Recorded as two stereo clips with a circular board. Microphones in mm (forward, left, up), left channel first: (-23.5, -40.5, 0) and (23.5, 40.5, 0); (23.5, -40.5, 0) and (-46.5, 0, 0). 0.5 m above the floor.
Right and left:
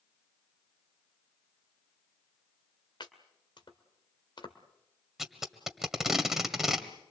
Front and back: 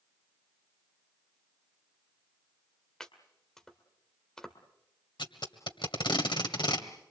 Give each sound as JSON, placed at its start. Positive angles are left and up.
{"t": 3.0, "sound": "chopping", "azimuth_deg": -110, "distance_m": 2.0}
{"t": 5.2, "sound": "tape being pulled", "azimuth_deg": -25, "distance_m": 1.7}